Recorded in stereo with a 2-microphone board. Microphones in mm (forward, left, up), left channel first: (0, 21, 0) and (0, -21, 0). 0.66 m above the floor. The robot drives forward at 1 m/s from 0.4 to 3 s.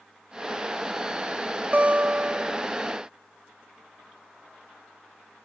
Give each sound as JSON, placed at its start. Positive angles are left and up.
{"t": 1.7, "sound": "a guitar", "side_deg": -35}